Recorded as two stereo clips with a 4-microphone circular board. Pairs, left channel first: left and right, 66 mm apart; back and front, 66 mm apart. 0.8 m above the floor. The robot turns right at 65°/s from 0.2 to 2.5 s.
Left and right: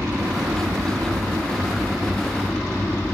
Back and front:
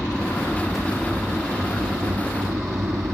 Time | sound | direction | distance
0.0 | an aircraft | 125° right | ?